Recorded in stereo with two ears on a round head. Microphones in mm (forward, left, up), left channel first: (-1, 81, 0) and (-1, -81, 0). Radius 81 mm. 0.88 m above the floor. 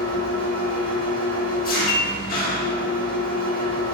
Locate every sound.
0.0 s an engine running: 55° left (ahead or behind), 0.9 m
1.9 s dishes clattering: 45° left (ahead or behind), 1.7 m